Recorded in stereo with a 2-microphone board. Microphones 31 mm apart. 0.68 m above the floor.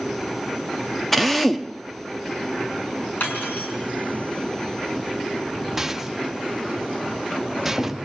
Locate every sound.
1.1 s a drill: 5° left (ahead or behind), 0.9 m
3.2 s cutlery clinking: 75° left (ahead or behind), 5 m
5.8 s a rattle: 10° right (ahead or behind), 0.6 m